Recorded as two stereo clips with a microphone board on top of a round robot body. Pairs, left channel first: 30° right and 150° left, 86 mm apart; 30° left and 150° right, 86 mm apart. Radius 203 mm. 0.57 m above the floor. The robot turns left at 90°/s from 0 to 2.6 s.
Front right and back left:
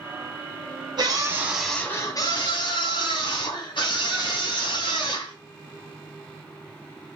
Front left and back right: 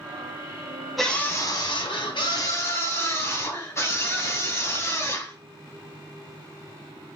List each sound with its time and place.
1.0 s a scream: 120° left, 4.5 m; by 5.3 s 25° right, 4.5 m